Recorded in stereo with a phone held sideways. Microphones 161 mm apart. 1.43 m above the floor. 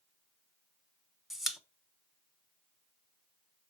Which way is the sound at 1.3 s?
Centre (ahead or behind).